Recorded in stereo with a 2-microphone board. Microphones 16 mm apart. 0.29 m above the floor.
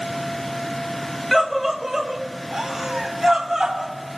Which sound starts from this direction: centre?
A scream, at 1.3 s.